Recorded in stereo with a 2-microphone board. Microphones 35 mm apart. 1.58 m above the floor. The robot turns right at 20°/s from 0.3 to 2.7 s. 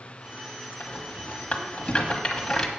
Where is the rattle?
45° left (ahead or behind), 1.6 m; by 2.7 s 5° left (ahead or behind), 1.6 m.